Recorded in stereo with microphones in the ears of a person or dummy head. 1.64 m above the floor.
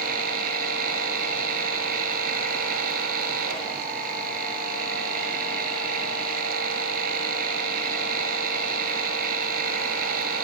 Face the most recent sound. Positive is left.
turn(degrees=-60)  # may be behind; listen again after turning